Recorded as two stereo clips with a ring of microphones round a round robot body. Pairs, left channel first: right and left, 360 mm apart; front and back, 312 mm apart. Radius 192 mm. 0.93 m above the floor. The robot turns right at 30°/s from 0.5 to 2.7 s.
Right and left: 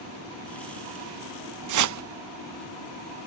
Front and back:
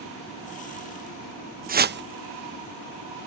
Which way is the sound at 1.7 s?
120° left.